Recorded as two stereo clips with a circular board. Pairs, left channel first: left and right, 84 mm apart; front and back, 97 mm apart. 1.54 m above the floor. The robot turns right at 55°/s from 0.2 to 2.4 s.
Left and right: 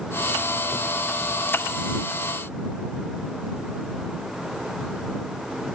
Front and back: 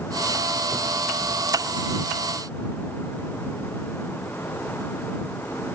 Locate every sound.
Only background noise.